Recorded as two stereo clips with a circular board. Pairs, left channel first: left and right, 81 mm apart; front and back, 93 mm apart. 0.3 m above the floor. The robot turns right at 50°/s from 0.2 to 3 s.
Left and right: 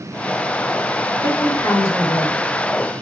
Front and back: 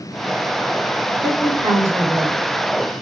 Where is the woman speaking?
100° left, 2.5 m; by 2.4 s 160° left, 2.5 m.